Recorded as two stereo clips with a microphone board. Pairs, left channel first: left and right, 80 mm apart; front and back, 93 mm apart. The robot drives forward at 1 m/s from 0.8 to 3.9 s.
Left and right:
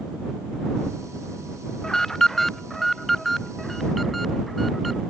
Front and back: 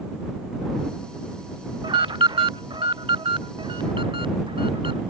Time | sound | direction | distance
1.8 | an alarm | 170° left | ?